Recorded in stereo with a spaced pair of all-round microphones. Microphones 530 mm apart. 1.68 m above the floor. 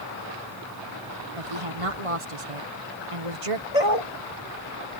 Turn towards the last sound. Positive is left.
turn(degrees=80)